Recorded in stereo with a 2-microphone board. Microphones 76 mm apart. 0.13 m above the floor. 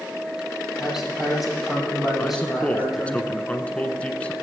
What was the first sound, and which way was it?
A man speaking, 5° right (ahead or behind).